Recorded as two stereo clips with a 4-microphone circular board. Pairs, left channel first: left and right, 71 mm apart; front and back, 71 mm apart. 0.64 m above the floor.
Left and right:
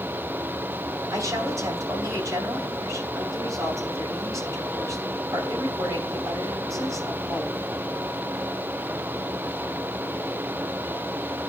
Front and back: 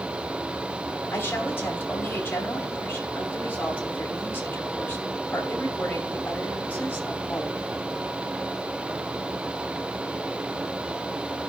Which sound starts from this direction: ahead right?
A woman speaking, at 1.1 s.